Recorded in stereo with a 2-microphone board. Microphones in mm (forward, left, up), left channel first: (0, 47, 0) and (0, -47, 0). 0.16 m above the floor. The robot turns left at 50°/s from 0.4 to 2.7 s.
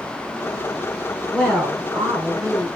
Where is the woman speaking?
15° right, 2.5 m; by 2.7 s 85° right, 2.5 m.